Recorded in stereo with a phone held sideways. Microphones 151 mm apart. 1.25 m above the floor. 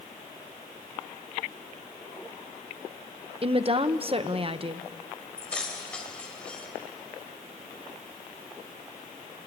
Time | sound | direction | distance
3.4 | a woman speaking | 40° right (ahead or behind) | 1.0 m
5.4 | keys jangling | 5° left (ahead or behind) | 3.5 m